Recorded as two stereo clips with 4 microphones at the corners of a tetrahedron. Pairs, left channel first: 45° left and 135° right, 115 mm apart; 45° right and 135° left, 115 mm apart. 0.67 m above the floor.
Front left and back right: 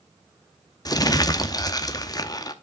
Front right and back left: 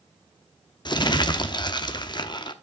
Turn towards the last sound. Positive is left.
turn(degrees=-5)